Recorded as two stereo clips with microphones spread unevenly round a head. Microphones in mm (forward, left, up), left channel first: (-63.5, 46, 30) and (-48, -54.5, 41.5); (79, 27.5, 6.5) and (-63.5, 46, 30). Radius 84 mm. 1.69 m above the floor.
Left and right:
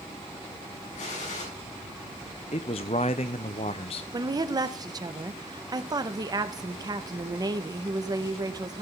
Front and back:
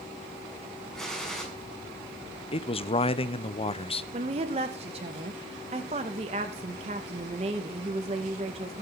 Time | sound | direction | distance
0.9 | a gunshot | 80° left | 7 m
2.5 | a man speaking | 45° left | 0.9 m
4.1 | a woman speaking | 130° right | 1.9 m